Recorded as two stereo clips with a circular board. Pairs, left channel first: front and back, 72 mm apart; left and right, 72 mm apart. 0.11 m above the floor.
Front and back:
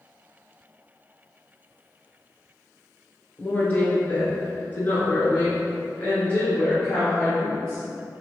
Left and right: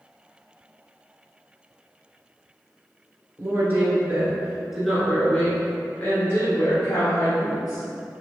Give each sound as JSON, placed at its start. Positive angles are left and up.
{"t": 3.4, "sound": "a woman speaking", "azimuth_deg": -60, "distance_m": 1.5}